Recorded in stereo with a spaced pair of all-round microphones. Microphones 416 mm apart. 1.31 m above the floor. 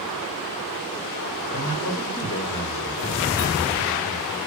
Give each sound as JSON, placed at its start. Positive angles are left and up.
{"t": 1.5, "sound": "a man speaking", "side_deg": 50, "distance_m": 5.0}